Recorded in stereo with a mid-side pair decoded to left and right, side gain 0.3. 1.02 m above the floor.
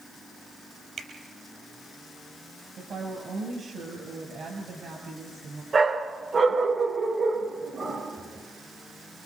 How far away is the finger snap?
About 5.5 m.